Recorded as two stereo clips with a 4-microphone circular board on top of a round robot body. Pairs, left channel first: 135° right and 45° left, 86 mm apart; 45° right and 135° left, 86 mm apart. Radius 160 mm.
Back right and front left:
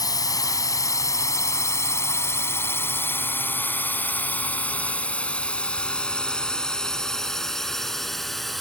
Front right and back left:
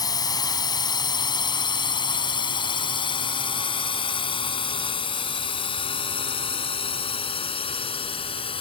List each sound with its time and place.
0.0 s a drone: 90° right; by 8.6 s 45° right